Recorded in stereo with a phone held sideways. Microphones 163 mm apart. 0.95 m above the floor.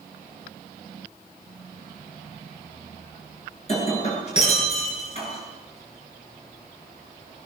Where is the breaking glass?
40° left (ahead or behind), 8 m.